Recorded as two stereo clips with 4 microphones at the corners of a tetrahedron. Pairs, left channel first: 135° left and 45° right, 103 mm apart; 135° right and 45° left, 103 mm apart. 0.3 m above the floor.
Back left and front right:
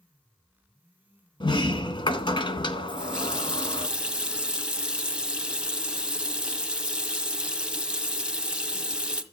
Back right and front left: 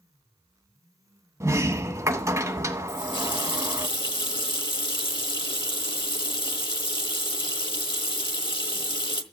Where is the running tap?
120° right, 1.2 m.